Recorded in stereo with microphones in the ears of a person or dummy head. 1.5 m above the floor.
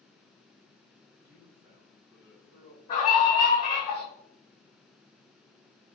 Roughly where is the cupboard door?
I don't hear a cupboard door.